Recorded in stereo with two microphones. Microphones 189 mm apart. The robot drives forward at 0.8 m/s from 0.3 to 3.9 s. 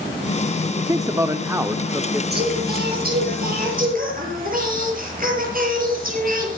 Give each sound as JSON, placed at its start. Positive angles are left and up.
{"t": 0.8, "sound": "a man speaking", "side_deg": -20, "distance_m": 0.9}
{"t": 2.3, "sound": "singing", "side_deg": -50, "distance_m": 6.5}